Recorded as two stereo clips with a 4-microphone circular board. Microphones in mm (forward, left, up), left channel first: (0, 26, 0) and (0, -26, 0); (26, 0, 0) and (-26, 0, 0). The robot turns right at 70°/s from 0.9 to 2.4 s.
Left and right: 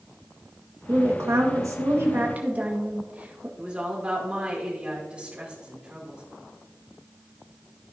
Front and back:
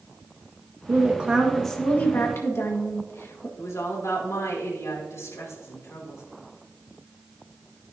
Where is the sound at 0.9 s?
135° right, 1.7 m; by 3.5 s 30° right, 1.7 m.